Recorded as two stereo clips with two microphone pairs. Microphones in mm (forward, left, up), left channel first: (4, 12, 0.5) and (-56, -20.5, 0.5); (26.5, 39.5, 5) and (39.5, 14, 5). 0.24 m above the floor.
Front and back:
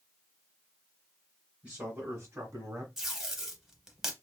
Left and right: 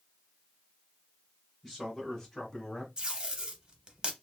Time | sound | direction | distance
1.6 | a man speaking | 160° right | 1.0 m
3.0 | tape being pulled | 75° right | 0.6 m